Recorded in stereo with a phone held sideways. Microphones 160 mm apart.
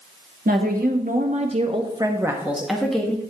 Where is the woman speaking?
65° right (ahead or behind), 1.5 m; by 3.2 s 10° left (ahead or behind), 1.4 m.